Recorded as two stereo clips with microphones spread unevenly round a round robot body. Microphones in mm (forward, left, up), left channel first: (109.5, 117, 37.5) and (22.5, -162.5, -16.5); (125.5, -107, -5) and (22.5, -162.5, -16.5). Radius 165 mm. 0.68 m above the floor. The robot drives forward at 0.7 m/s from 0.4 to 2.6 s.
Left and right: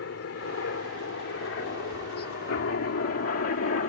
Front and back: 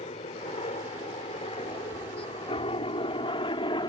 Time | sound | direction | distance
0.0 | a helicopter | 35° left | ?